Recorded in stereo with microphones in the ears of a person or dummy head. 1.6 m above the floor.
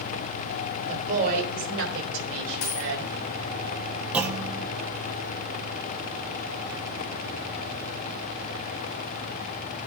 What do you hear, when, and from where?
0.9 s a woman speaking: 40° right (ahead or behind), 3.5 m; by 3.1 s 80° right, 5.5 m
2.6 s a dropped coin: 55° left (ahead or behind), 2.0 m
4.1 s a clunk: 10° right (ahead or behind), 1.0 m